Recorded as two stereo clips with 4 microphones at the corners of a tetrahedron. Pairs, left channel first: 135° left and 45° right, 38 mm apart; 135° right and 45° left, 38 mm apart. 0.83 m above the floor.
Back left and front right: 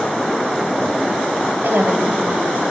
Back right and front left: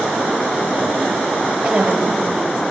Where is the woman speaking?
25° right, 3 m.